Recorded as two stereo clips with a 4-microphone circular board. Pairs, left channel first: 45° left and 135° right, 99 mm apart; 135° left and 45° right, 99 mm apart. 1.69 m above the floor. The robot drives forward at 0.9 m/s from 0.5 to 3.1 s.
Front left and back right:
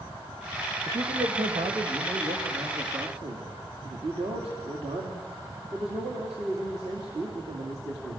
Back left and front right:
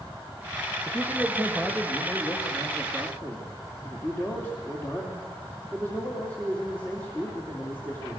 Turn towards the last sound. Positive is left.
turn(degrees=-155)